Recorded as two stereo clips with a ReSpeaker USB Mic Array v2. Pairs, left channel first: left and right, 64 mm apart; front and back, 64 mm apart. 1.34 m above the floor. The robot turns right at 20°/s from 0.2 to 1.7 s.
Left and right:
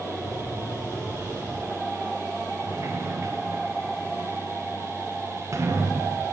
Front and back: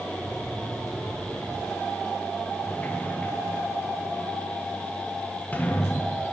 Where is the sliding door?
60° right, 0.7 m.